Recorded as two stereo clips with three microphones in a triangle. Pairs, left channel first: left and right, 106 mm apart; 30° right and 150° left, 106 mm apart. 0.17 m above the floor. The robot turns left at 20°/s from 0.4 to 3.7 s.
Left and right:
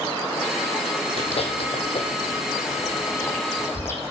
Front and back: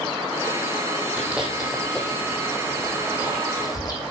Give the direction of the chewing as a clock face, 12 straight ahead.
10 o'clock.